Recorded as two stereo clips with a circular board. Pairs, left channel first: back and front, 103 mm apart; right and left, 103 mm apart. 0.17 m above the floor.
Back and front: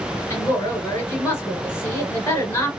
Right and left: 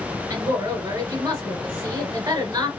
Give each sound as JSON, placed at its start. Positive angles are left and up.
{"t": 0.3, "sound": "a woman speaking", "azimuth_deg": 125, "distance_m": 1.7}